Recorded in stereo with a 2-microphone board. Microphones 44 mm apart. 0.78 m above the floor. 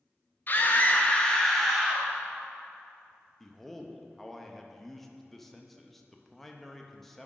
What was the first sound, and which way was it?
A scream, 40° left (ahead or behind).